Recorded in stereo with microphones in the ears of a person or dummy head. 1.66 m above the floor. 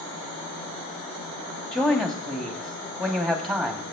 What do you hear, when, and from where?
1.7 s a man speaking: 5° left (ahead or behind), 2.5 m